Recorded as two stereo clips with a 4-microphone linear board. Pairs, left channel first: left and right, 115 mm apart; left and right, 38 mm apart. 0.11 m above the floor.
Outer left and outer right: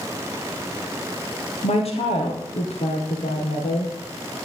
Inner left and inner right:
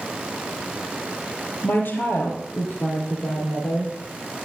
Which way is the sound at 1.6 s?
60° left (ahead or behind).